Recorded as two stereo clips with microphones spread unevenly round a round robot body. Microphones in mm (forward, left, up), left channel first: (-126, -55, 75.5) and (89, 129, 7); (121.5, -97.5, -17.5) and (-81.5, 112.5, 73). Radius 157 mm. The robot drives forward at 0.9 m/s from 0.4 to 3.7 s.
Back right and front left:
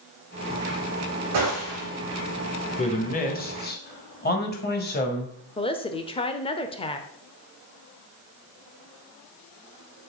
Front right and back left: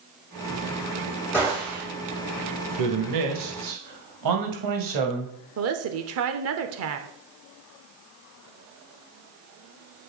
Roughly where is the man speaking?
Behind left.